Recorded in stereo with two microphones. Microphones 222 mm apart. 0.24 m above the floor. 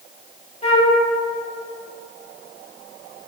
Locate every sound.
0.6 s a flute: 30° left (ahead or behind), 0.5 m